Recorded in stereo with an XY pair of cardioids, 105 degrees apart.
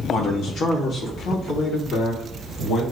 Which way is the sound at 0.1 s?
65° left.